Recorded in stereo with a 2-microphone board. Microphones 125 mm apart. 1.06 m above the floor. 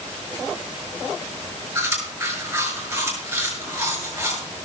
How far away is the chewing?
About 6.5 m.